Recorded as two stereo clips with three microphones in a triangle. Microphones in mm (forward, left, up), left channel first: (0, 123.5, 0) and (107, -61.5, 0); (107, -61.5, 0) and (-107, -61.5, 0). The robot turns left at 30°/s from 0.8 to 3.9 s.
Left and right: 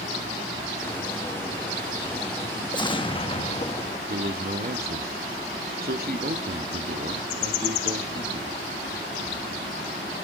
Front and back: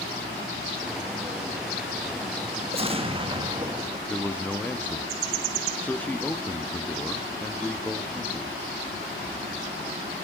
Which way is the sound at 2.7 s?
165° left.